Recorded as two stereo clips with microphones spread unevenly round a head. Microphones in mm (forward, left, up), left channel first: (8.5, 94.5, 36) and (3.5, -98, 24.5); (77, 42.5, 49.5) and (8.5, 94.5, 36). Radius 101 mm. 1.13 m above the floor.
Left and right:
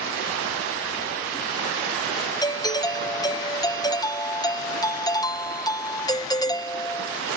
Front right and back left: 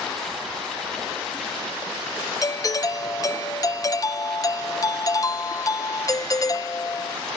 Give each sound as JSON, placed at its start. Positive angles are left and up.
{"t": 2.4, "sound": "a doorbell", "azimuth_deg": 15}